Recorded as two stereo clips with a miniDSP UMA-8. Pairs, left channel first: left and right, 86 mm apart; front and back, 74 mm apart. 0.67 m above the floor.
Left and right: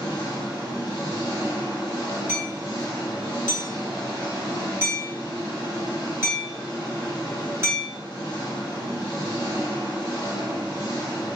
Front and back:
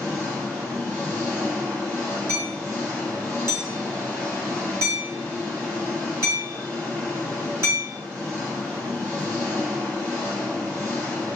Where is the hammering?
140° right, 1.0 m.